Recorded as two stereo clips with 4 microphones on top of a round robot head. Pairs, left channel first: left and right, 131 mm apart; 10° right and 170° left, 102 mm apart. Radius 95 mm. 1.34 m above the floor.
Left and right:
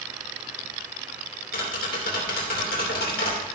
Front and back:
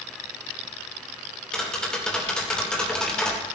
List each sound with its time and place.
1.5 s tapping: 70° left, 2.5 m